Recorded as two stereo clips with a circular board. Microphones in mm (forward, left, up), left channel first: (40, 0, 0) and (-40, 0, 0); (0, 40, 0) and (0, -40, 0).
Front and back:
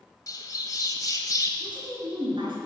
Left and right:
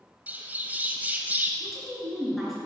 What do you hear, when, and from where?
0.3 s a bird: 25° right, 0.9 m
1.6 s a woman speaking: straight behind, 3.5 m